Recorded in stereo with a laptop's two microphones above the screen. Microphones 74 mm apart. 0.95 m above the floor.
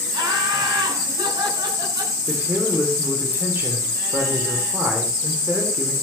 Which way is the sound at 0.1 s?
85° right.